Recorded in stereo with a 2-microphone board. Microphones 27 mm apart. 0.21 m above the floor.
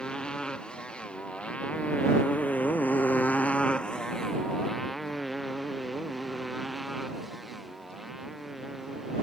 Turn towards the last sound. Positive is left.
turn(degrees=-10)  # may be behind; listen again after turning